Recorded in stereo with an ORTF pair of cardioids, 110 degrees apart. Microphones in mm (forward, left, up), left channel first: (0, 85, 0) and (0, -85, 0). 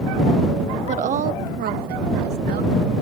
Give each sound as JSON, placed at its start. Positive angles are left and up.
{"t": 0.9, "sound": "a woman speaking", "azimuth_deg": -40}